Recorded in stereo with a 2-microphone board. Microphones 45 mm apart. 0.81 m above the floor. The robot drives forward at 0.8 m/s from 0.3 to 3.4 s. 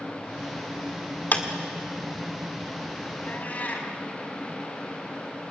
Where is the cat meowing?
35° left (ahead or behind), 3.5 m; by 3.9 s 40° left (ahead or behind), 3.5 m.